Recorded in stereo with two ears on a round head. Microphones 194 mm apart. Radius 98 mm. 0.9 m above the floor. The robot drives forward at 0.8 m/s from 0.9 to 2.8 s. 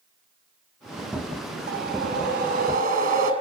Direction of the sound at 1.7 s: 45° right (ahead or behind).